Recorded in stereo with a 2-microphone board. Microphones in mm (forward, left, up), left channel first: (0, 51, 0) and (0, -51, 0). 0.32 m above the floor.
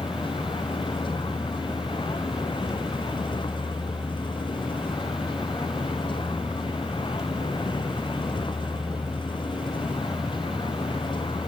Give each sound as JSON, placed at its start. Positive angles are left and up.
{"t": 0.0, "sound": "a vehicle", "side_deg": 50}